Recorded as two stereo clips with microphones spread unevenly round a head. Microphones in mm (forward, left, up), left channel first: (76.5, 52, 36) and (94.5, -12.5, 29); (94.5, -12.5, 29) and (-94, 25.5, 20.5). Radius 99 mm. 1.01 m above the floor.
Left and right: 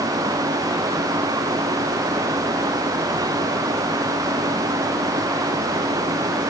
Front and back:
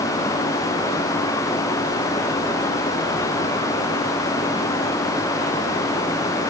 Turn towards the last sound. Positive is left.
No sound to turn to.